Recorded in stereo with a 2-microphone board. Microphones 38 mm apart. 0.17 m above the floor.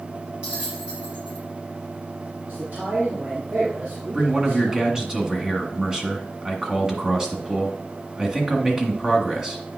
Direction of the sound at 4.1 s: 20° right (ahead or behind).